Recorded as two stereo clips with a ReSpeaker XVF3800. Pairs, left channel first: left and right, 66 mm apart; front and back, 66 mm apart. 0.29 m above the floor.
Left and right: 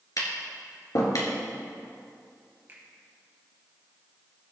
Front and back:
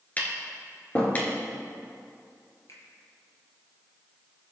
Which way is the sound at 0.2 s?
60° left.